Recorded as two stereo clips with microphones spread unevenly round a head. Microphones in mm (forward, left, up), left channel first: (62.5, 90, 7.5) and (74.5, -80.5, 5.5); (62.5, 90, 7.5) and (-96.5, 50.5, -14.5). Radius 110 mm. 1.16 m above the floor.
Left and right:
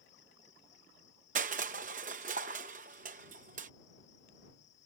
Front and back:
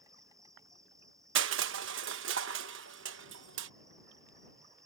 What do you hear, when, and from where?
0.0 s an insect: 125° left
1.4 s crushing: 145° right